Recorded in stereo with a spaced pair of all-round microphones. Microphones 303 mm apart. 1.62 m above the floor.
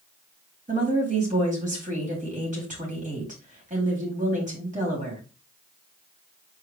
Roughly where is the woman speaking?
Right.